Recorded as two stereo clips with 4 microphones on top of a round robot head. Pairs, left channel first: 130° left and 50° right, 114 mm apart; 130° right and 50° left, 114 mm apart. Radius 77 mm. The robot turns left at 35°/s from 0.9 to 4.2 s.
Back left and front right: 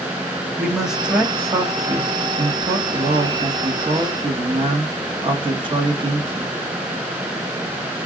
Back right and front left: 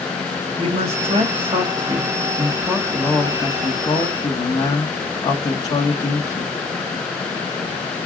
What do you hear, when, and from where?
0.6 s a man speaking: 35° left, 1.3 m; by 6.5 s 80° right, 1.3 m